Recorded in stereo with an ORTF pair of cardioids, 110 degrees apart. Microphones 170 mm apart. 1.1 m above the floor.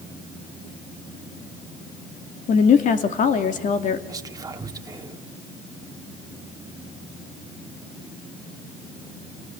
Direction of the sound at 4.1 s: 20° right.